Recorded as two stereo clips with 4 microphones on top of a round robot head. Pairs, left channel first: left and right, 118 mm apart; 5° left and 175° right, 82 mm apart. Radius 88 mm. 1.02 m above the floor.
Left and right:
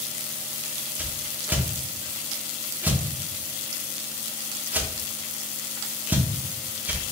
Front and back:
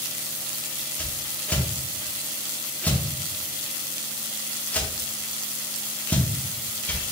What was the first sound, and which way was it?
A whoosh, 40° right.